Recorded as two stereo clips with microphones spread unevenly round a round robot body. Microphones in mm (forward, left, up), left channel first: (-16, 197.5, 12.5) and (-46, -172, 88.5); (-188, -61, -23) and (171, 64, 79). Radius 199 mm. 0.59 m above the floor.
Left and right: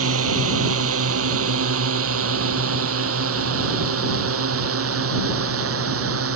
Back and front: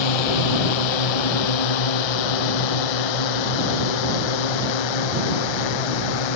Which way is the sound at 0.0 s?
150° right.